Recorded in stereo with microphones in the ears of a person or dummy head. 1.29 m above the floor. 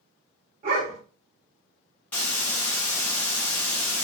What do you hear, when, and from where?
0.6 s a dog barking: 35° right (ahead or behind), 1.6 m
2.1 s a hiss: 10° left (ahead or behind), 1.3 m